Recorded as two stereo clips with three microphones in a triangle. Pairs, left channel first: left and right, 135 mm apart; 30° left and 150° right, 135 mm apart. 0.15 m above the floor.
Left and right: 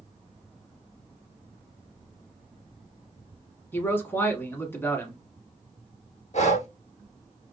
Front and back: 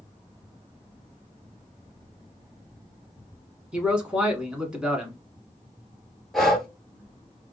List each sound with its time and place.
3.7 s a man speaking: 140° left, 1.0 m
6.3 s breathing: 120° left, 0.7 m